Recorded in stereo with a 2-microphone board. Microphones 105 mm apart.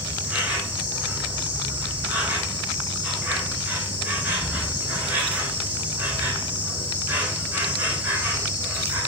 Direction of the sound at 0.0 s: 15° right (ahead or behind).